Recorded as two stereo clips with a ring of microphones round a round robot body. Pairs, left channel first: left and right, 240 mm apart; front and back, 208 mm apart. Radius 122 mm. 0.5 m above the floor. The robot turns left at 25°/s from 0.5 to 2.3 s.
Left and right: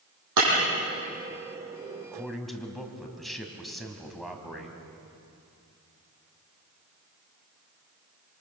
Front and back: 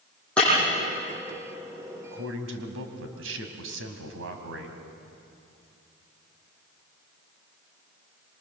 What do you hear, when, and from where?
0.4 s breaking glass: 85° right, 9 m
2.1 s a man speaking: 175° right, 3 m; by 4.8 s straight behind, 3 m